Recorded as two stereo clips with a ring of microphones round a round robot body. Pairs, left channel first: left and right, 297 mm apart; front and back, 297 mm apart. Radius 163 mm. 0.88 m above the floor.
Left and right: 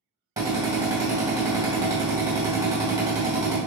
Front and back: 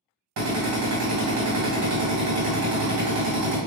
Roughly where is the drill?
Behind.